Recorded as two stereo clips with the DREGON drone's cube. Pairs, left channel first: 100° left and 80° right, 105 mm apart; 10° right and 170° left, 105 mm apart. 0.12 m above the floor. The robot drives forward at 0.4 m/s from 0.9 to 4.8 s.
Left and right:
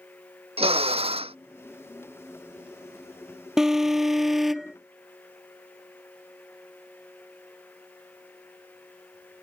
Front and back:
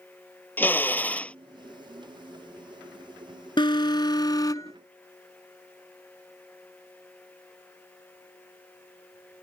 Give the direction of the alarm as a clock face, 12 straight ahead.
12 o'clock.